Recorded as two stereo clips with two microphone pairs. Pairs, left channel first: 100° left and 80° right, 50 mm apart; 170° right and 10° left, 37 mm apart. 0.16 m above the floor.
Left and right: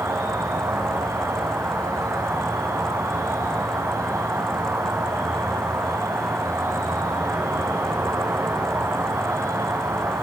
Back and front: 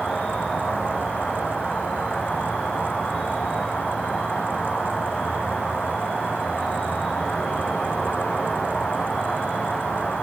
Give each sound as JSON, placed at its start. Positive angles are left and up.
{"t": 0.0, "sound": "an insect", "azimuth_deg": -100, "distance_m": 7.0}